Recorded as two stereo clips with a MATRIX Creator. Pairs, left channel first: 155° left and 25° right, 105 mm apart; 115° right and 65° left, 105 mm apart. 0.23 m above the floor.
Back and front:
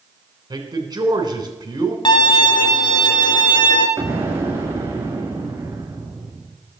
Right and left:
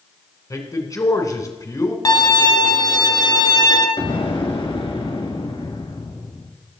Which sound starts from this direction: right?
An explosion, at 4.0 s.